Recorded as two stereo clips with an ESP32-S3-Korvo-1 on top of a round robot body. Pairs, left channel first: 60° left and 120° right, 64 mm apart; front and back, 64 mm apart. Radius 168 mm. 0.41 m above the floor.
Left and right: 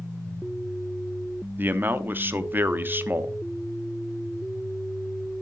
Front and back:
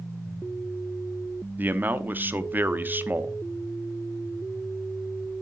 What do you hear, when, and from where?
1.6 s a man speaking: 150° right, 0.9 m